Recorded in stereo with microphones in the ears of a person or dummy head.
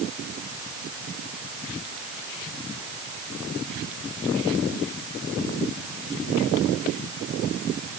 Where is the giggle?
I don't hear a giggle.